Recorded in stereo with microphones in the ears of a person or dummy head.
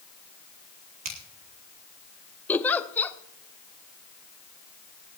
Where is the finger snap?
40° right (ahead or behind), 2 m.